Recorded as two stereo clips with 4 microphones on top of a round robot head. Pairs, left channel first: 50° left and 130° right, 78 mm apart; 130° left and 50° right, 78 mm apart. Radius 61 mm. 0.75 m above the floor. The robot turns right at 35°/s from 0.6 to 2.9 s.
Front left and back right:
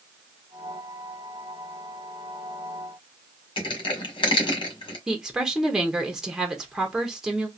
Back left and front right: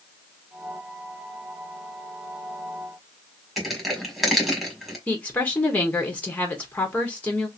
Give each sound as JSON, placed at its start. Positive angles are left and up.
{"t": 3.6, "sound": "crushing", "azimuth_deg": 40, "distance_m": 1.6}
{"t": 5.1, "sound": "a woman speaking", "azimuth_deg": 150, "distance_m": 1.1}